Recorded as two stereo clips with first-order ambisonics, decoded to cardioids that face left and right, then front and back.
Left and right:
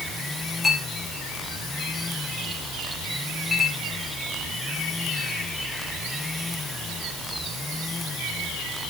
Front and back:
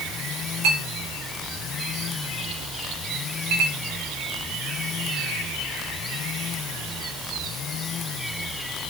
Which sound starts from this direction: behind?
A clink, at 0.6 s.